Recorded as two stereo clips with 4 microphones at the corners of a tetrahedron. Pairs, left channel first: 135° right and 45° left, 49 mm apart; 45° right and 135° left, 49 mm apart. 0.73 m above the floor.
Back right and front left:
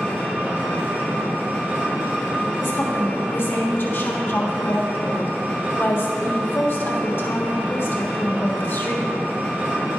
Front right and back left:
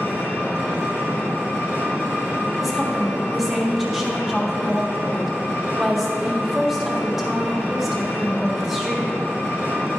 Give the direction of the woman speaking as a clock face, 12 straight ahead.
5 o'clock.